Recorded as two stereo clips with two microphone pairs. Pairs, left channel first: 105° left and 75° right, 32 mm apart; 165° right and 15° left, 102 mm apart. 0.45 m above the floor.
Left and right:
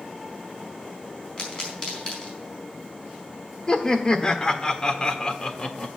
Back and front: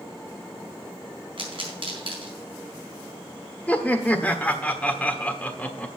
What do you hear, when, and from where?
1.4 s a pop: 45° left, 4 m
3.7 s laughter: 135° left, 1.2 m